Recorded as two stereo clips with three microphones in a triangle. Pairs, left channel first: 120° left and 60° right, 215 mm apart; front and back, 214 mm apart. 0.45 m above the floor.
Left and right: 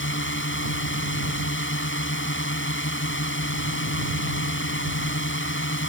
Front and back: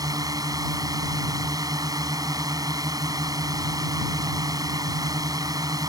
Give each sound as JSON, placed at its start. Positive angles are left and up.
{"t": 0.0, "sound": "a drone", "azimuth_deg": 110}